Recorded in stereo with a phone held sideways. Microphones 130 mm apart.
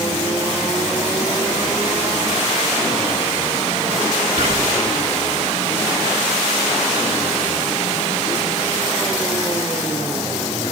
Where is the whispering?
60° right (ahead or behind), 1.4 m.